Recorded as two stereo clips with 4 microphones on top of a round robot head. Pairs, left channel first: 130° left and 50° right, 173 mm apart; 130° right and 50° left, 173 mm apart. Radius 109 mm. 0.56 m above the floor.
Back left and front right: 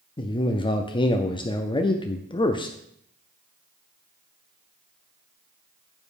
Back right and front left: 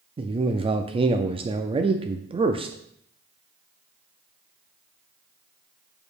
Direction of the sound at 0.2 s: 85° left.